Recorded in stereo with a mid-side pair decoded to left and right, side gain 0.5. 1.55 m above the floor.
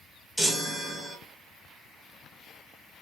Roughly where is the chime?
Ahead.